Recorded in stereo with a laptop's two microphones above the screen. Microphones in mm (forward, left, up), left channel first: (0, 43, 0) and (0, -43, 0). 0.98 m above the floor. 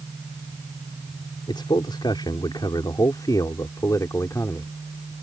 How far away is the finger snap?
No finger snap in this recording.